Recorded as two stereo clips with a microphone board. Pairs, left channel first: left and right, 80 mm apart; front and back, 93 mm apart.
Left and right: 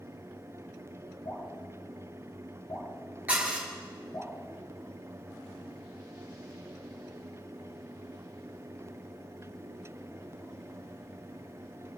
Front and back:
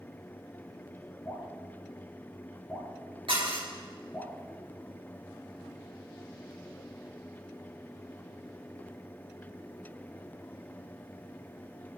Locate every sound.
1.2 s dripping: 65° left, 4 m
3.3 s dishes clattering: 165° right, 3 m